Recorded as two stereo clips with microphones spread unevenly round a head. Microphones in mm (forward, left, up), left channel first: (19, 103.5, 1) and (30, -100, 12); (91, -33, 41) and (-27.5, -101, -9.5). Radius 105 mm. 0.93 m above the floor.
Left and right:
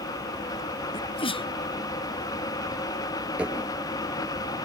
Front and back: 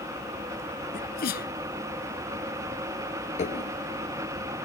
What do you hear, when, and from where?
0.9 s a sneeze: 25° left
3.4 s dishes clattering: 5° right